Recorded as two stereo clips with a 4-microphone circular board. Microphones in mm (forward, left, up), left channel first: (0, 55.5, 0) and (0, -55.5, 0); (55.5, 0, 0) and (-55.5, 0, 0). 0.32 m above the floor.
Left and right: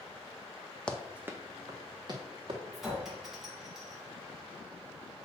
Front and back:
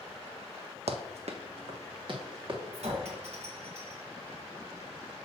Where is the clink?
Straight behind, 2 m.